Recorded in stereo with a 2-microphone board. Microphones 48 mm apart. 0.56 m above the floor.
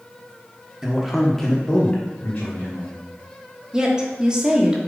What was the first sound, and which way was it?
A man speaking, 10° right (ahead or behind).